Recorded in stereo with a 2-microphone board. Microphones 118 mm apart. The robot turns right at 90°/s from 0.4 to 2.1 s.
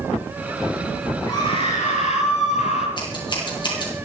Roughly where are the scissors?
Left.